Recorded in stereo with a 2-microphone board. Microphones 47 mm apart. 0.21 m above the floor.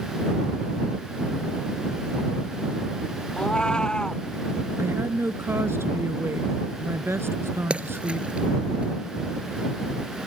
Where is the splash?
25° right (ahead or behind).